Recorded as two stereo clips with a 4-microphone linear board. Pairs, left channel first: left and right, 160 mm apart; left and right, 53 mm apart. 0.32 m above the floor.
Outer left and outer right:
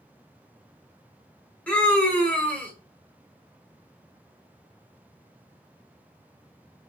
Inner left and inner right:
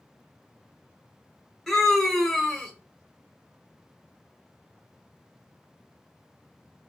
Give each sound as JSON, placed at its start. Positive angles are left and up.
{"t": 1.7, "sound": "a scream", "side_deg": 10, "distance_m": 1.1}